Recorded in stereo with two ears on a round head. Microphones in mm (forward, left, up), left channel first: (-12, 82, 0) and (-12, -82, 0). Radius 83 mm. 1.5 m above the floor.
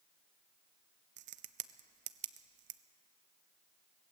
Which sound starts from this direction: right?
A crack, at 1.2 s.